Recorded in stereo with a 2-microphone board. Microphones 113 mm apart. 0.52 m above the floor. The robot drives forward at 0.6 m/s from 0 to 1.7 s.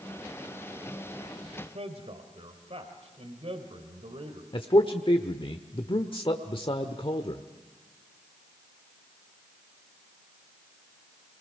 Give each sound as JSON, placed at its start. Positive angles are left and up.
{"t": 1.6, "sound": "a man speaking", "side_deg": -65, "distance_m": 2.5}
{"t": 4.5, "sound": "a man speaking", "side_deg": 50, "distance_m": 1.1}